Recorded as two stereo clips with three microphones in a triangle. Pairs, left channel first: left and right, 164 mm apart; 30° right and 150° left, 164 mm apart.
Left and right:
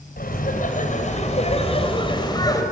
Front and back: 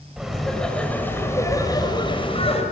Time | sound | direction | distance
0.2 | laughter | 65° left | 4.5 m